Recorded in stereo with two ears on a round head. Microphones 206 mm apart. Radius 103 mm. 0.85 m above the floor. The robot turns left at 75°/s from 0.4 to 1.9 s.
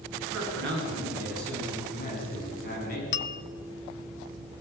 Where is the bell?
50° left (ahead or behind), 0.8 m.